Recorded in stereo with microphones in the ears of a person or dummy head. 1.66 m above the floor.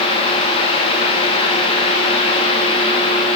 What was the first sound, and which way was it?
Only background noise.